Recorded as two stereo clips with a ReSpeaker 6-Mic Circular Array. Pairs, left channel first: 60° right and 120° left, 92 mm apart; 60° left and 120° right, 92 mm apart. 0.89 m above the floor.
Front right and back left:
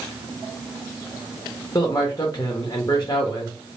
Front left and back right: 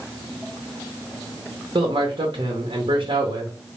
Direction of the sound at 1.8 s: 110° right.